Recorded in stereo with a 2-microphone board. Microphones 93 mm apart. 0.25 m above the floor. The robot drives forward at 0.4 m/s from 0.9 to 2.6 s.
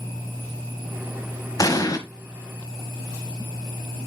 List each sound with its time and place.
1.6 s an explosion: 40° left (ahead or behind), 1.2 m